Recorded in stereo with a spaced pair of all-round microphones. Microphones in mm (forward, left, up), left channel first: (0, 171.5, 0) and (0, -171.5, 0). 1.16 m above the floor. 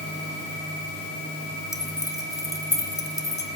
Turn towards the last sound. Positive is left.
turn(degrees=10)  # may be behind; listen again after turning